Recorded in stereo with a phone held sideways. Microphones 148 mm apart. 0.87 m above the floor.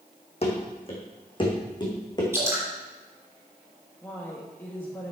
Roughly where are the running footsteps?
Left.